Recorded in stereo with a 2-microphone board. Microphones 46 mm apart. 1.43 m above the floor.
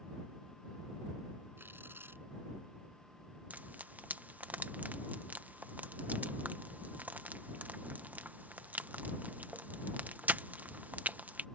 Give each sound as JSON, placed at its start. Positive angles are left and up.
{"t": 1.6, "sound": "tearing paper", "side_deg": -55}
{"t": 3.5, "sound": "frying", "side_deg": -40}